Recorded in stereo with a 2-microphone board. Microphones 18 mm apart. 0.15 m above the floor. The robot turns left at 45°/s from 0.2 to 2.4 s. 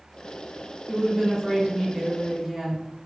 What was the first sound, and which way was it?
A woman speaking, 5° left (ahead or behind).